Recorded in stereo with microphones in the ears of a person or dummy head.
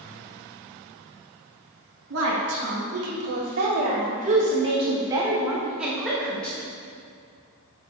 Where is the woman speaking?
70° right (ahead or behind), 2 m; by 6.6 s 10° left (ahead or behind), 1.6 m.